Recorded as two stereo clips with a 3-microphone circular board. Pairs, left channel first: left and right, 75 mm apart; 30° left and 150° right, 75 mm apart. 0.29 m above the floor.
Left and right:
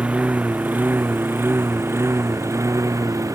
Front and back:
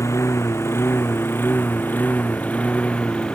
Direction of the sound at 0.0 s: 15° right.